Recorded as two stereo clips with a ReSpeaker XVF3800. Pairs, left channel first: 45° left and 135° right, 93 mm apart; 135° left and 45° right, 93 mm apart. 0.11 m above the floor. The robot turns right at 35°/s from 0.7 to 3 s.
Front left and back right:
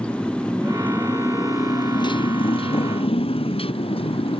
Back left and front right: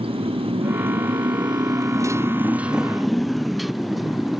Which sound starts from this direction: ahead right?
A motorcycle, at 0.0 s.